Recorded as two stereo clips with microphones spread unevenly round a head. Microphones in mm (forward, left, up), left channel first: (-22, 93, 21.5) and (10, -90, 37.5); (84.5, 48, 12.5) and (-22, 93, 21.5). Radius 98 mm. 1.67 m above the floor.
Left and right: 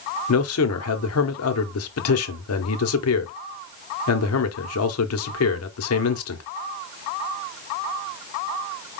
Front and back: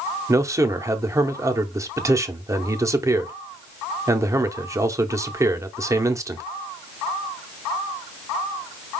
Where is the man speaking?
95° left, 0.9 m.